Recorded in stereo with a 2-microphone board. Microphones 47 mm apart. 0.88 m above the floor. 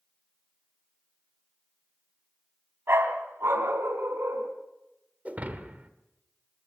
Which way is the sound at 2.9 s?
55° right (ahead or behind).